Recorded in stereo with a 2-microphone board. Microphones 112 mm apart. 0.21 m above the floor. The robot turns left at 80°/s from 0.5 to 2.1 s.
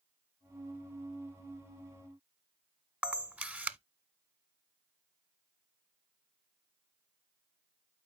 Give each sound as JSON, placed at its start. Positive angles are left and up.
{"t": 3.0, "sound": "a camera shutter", "side_deg": -10, "distance_m": 0.5}